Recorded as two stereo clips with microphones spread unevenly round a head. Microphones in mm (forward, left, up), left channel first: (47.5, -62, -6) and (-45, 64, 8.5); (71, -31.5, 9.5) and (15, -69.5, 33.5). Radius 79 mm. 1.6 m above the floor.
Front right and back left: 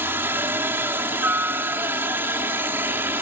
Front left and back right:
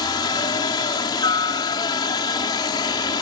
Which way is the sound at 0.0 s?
50° left.